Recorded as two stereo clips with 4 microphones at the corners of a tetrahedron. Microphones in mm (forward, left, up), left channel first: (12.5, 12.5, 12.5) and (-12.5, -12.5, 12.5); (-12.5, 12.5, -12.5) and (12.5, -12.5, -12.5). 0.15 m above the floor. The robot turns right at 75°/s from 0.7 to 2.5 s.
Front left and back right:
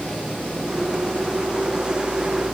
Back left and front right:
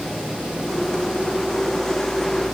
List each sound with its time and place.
Only background noise.